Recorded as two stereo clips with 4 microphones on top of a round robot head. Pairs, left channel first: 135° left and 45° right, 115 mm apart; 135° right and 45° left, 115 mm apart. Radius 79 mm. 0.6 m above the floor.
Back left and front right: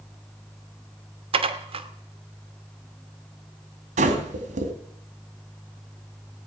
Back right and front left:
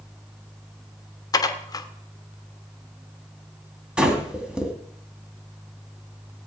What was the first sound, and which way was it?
Dishes clattering, 80° right.